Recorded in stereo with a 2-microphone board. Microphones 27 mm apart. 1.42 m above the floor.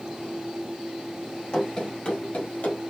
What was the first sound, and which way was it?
Running footsteps, 30° left (ahead or behind).